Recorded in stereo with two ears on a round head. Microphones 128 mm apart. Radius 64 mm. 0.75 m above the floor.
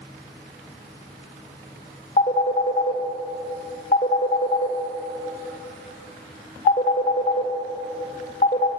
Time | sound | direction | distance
2.2 | a phone ringing | 45° left (ahead or behind) | 1.8 m